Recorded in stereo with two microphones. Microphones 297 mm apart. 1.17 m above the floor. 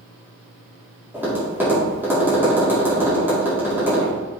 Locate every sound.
1.1 s tapping: 5° right (ahead or behind), 3.5 m